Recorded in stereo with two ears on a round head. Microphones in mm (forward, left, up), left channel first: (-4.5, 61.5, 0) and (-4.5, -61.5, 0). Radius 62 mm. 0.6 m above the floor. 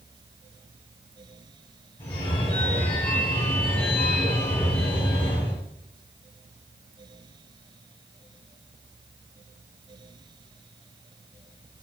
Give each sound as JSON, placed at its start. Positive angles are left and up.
{"t": 2.0, "sound": "a phone ringing", "side_deg": 45, "distance_m": 4.5}